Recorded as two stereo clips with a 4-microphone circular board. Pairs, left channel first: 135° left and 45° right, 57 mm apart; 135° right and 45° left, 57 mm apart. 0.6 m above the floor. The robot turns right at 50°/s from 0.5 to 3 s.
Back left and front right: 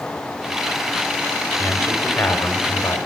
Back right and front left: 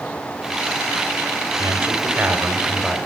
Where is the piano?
I don't hear a piano.